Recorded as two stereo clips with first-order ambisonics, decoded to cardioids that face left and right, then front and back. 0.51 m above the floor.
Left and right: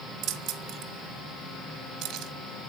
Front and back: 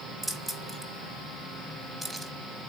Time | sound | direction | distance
0.2 | keys jangling | 100° right | 0.8 m